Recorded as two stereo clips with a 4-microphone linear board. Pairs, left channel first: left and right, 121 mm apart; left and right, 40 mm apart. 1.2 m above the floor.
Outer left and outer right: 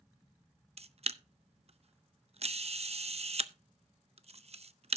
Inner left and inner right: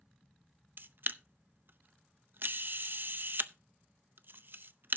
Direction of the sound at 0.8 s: 55° right (ahead or behind).